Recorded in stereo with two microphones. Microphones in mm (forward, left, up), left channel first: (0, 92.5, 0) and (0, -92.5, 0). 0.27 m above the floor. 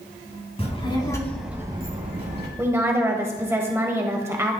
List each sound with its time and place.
0.6 s a child speaking: 35° left (ahead or behind), 2 m; by 2.5 s 65° right (ahead or behind), 1.7 m
2.6 s a woman speaking: 15° right (ahead or behind), 0.9 m